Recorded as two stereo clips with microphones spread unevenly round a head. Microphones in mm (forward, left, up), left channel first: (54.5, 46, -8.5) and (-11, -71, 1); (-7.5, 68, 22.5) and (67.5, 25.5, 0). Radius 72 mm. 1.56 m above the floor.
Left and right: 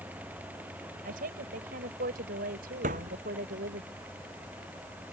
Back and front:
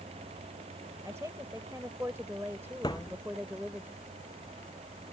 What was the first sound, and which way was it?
A woman speaking, 105° right.